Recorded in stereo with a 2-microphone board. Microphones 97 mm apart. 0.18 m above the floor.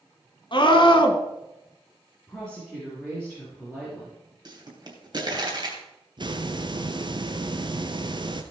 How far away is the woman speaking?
About 4.5 m.